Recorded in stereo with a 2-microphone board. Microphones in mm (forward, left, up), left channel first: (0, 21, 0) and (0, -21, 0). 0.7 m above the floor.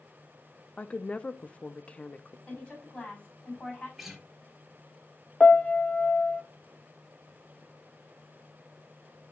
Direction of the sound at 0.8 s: 30° left (ahead or behind).